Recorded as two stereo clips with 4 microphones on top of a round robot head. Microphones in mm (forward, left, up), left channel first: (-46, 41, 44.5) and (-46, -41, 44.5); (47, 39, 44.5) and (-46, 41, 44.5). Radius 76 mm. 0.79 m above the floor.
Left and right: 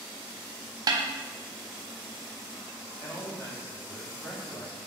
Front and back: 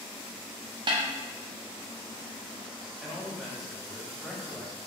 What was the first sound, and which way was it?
A snare drum, 135° right.